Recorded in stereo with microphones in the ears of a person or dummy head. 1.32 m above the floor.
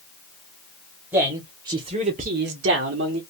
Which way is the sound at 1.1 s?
15° right (ahead or behind).